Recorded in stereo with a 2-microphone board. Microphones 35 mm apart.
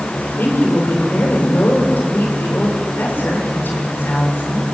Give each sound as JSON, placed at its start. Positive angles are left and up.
{"t": 0.2, "sound": "a woman speaking", "side_deg": 85, "distance_m": 7.0}